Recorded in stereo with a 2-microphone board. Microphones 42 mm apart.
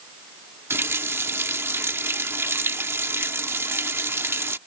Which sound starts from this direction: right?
A running tap, at 0.7 s.